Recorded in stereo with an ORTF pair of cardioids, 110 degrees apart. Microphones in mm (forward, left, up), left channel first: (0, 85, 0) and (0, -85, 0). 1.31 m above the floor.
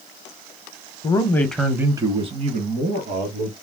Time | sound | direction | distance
1.0 | a man speaking | 30° left | 0.7 m